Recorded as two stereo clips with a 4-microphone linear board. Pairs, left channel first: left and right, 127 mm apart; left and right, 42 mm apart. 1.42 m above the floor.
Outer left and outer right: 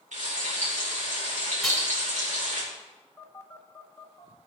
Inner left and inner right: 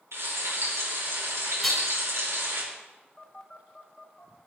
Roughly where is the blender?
I don't hear a blender.